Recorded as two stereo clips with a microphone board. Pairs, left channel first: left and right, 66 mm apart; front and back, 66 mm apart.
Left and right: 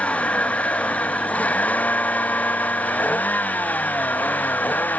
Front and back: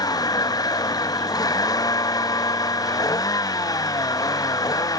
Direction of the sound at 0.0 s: 20° left.